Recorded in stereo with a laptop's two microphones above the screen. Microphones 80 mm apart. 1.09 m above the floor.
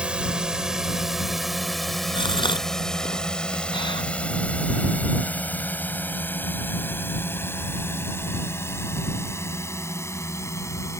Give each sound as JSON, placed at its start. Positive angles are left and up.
{"t": 0.0, "sound": "a drone", "side_deg": -10}
{"t": 2.1, "sound": "a gasp", "side_deg": 85}